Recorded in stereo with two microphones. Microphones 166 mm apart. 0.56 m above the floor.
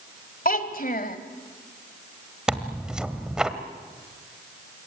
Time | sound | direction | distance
0.5 | a child speaking | 60° left (ahead or behind) | 1.8 m
2.5 | tearing paper | 5° right (ahead or behind) | 1.4 m